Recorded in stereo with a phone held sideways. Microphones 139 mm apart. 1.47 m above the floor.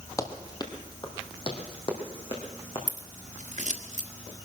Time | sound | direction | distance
0.2 | running footsteps | 25° left (ahead or behind) | 1.7 m
2.9 | scissors | 65° right (ahead or behind) | 1.5 m